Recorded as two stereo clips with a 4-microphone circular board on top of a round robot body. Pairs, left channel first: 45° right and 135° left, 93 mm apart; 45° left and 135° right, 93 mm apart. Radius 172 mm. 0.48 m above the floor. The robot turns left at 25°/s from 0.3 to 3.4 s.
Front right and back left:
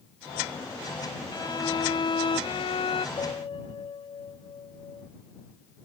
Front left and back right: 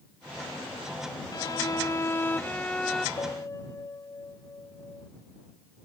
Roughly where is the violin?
Ahead.